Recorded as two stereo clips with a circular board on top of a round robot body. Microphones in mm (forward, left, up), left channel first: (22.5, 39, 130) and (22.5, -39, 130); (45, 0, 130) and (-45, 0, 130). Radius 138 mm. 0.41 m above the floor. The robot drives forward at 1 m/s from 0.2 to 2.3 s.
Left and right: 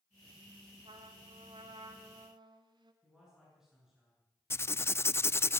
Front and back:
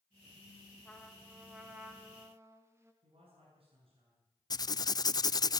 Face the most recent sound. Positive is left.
turn(degrees=35)